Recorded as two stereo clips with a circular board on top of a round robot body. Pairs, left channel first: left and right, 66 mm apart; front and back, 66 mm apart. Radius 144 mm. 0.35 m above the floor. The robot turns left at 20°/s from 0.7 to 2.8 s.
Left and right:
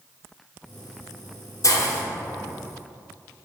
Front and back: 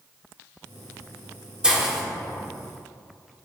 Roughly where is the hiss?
Left.